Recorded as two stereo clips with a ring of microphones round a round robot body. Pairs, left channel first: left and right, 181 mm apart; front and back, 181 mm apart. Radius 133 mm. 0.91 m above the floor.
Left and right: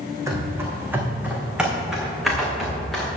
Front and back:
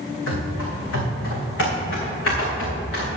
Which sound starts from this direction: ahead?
Running footsteps, at 0.3 s.